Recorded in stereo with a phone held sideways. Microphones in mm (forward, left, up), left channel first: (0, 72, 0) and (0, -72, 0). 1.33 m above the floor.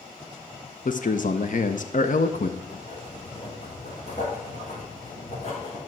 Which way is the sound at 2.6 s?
50° left (ahead or behind).